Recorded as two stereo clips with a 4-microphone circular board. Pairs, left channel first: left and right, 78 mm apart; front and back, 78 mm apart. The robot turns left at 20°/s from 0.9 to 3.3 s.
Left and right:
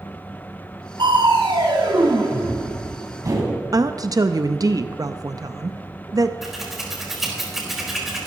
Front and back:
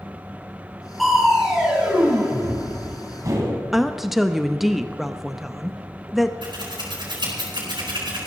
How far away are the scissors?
About 4 m.